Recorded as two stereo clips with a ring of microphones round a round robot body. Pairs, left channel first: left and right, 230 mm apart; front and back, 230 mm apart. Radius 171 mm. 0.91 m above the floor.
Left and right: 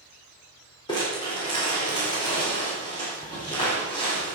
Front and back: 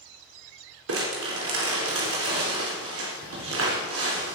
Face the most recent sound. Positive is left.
turn(degrees=165)